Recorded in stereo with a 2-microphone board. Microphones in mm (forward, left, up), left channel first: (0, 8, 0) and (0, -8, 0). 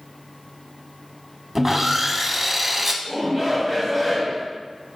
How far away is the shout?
About 1.3 m.